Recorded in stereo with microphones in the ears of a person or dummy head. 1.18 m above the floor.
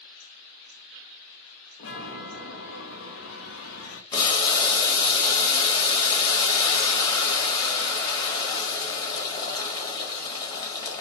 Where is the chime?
65° left (ahead or behind), 1.0 m.